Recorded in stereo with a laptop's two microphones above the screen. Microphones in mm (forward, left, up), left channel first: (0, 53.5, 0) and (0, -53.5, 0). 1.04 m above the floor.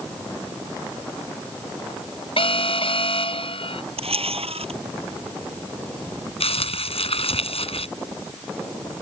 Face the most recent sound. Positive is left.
turn(degrees=75)  # may be behind; listen again after turning